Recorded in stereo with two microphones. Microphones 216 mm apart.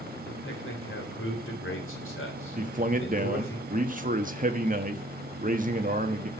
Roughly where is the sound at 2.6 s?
Right.